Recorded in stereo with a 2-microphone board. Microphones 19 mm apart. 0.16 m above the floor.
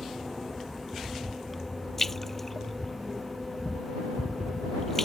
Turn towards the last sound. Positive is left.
turn(degrees=15)  # may be behind; listen again after turning